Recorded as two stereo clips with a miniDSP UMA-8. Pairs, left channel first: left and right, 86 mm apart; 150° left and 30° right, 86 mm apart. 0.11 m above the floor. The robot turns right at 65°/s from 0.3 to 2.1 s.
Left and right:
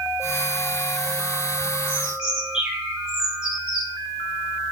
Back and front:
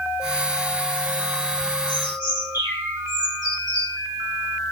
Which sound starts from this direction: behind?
A bird, at 1.9 s.